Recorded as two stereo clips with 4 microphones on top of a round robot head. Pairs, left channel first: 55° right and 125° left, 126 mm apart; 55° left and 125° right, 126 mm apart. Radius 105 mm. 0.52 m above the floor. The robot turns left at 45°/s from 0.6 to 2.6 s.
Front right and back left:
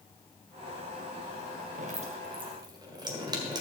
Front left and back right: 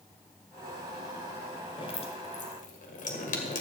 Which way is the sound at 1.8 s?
105° left.